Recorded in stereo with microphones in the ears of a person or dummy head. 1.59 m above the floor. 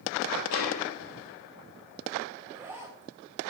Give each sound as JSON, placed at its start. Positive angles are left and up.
{"t": 0.5, "sound": "a snare drum", "side_deg": 75, "distance_m": 4.5}
{"t": 2.4, "sound": "a zipper", "side_deg": -10, "distance_m": 1.8}